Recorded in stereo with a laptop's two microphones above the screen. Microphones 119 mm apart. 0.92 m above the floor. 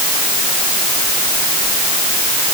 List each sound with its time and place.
Only background noise.